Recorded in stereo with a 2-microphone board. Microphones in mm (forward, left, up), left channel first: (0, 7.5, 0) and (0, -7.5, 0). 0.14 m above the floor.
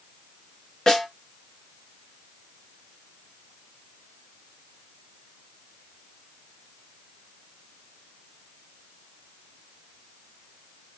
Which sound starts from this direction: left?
A snare drum, at 0.9 s.